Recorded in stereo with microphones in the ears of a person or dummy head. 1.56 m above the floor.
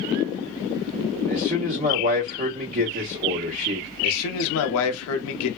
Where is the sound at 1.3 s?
40° right (ahead or behind), 1.1 m.